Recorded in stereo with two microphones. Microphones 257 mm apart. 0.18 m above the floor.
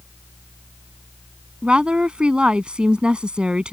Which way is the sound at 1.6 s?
5° right (ahead or behind).